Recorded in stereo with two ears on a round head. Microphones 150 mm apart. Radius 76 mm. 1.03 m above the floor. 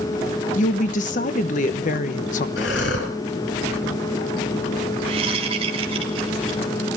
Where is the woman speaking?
50° left (ahead or behind), 1.1 m.